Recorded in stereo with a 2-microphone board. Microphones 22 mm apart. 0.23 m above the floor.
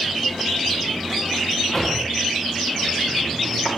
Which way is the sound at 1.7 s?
5° left (ahead or behind).